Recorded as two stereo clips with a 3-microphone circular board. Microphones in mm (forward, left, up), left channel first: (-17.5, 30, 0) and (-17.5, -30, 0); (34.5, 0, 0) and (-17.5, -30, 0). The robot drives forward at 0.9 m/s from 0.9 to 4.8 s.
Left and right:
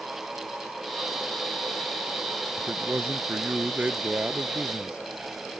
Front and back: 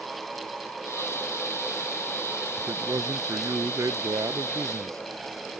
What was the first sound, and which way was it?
A man speaking, 140° right.